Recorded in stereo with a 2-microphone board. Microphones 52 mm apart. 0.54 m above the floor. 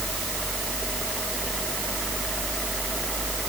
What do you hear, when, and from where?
Only background noise.